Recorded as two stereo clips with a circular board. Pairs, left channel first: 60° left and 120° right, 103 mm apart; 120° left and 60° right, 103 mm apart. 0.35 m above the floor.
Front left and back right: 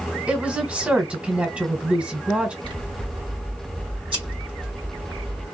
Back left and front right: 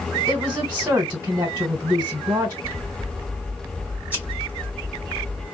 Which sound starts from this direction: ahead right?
A woman speaking, at 0.3 s.